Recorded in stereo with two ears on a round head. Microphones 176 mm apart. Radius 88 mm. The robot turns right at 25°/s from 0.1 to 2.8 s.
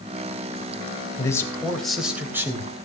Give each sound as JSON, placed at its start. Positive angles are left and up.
{"t": 1.2, "sound": "a man speaking", "azimuth_deg": 160, "distance_m": 3.0}